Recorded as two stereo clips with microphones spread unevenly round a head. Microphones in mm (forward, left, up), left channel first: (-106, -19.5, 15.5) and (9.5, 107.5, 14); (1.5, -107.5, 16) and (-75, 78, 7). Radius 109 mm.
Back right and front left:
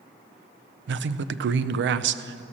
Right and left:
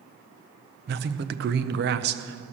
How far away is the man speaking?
About 0.5 m.